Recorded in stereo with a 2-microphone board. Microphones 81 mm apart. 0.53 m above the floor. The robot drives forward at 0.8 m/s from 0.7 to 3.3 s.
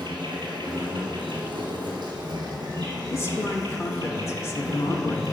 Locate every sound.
0.0 s an insect: 75° right (ahead or behind), 1.7 m; by 5.3 s 45° right (ahead or behind), 2.5 m
3.1 s a man speaking: 35° left (ahead or behind), 0.8 m